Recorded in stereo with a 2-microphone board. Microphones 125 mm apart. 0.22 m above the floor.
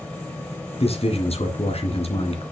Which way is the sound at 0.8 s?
55° left (ahead or behind).